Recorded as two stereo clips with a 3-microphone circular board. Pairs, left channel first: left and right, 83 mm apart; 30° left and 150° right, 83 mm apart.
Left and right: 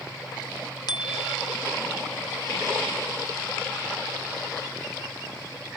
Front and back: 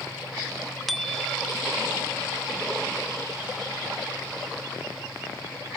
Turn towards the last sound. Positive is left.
turn(degrees=120)